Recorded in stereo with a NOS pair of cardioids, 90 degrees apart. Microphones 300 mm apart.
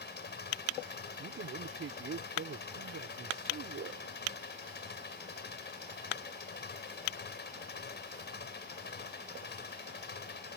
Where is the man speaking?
45° right.